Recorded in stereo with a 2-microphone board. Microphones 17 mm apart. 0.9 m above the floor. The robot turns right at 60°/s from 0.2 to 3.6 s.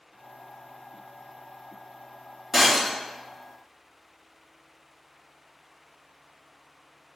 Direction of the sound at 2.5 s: 10° right (ahead or behind).